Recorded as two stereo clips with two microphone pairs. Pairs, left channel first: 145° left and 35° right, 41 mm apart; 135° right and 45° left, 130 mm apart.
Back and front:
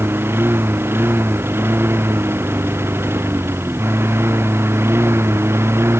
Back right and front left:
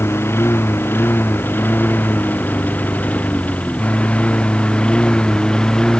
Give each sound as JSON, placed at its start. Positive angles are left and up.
{"t": 0.0, "sound": "a lawn mower", "azimuth_deg": -65}